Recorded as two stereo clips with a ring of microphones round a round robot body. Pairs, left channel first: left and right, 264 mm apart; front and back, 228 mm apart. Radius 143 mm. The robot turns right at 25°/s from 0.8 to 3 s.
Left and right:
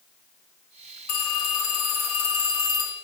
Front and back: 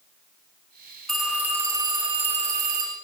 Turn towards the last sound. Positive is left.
turn(degrees=135)